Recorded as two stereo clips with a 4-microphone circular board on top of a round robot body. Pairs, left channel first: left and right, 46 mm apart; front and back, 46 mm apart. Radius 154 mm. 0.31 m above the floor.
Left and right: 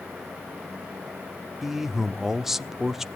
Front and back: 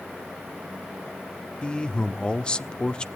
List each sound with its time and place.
1.6 s a man speaking: 20° right, 1.2 m